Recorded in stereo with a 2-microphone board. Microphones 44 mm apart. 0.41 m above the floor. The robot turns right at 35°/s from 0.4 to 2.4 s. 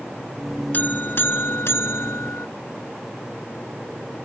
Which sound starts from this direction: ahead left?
A buzzer, at 0.7 s.